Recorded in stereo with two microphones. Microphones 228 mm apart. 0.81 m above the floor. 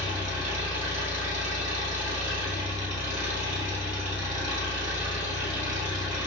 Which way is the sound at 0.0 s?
35° right (ahead or behind).